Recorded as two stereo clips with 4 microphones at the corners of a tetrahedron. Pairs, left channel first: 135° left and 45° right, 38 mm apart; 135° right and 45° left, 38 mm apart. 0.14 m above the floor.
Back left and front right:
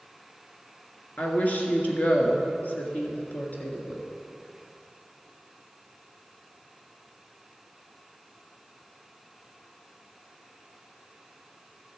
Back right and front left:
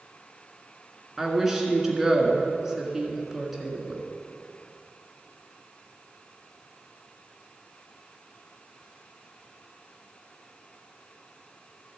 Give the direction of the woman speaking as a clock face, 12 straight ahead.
8 o'clock.